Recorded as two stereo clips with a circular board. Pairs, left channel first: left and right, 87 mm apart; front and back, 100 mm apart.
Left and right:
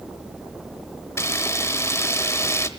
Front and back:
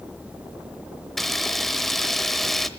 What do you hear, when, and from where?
1.2 s a camera shutter: 85° left, 1.0 m